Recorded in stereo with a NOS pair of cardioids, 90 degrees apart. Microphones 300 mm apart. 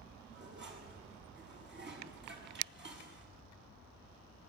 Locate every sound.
0.3 s dishes clattering: 35° right, 7.5 m